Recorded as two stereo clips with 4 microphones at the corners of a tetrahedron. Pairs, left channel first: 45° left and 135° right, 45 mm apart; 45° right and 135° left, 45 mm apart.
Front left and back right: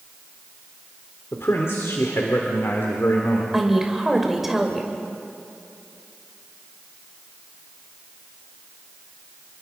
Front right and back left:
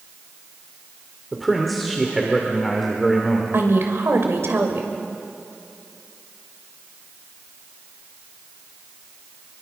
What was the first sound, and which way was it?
A man speaking, 45° left.